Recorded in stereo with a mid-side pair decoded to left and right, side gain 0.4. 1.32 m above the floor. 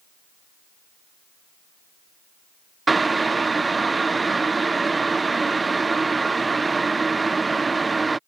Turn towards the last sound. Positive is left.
turn(degrees=-30)